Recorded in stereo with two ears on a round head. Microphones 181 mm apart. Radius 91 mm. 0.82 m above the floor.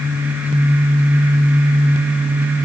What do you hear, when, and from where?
Only background noise.